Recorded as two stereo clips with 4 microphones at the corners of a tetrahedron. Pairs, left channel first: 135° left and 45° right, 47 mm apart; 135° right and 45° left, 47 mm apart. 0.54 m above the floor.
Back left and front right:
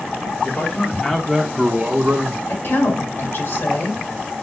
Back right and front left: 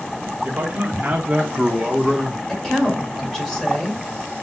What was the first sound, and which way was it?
A man speaking, 90° left.